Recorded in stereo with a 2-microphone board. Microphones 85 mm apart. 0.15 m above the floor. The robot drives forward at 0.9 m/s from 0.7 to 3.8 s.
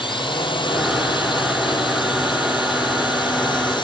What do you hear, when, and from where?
0.0 s a drone: 75° left (ahead or behind); by 3.8 s 65° left (ahead or behind)